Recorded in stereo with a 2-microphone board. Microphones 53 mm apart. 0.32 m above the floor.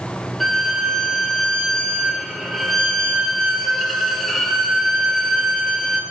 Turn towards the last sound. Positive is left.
turn(degrees=5)  # may be behind; listen again after turning